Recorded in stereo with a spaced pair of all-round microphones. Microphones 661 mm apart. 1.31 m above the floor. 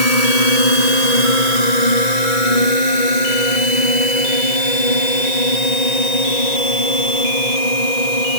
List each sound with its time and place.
0.0 s a drone: 65° left (ahead or behind); by 8.4 s 75° left (ahead or behind)